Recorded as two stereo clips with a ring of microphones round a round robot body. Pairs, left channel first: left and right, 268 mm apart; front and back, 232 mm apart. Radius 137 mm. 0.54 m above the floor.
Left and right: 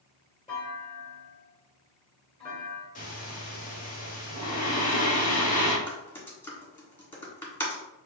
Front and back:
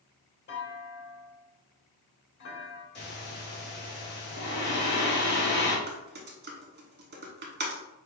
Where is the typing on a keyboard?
170° left, 1.6 m.